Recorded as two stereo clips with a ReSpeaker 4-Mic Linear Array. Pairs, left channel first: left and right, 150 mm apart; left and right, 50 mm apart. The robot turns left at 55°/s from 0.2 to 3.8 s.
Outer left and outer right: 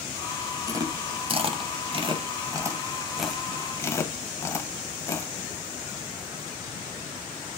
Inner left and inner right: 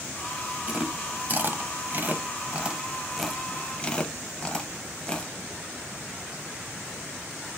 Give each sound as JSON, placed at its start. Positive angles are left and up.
{"t": 0.7, "sound": "chewing", "side_deg": -25, "distance_m": 0.5}